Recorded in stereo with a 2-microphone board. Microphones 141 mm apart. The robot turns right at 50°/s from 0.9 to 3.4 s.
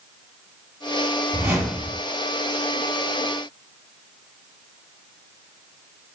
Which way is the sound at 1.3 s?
20° right.